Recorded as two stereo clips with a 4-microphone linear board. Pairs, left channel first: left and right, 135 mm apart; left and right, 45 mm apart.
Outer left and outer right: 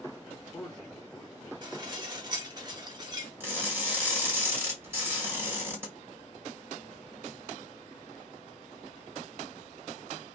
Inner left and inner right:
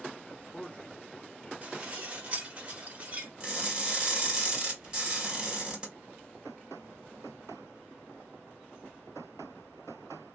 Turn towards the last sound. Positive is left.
turn(degrees=-15)  # may be behind; listen again after turning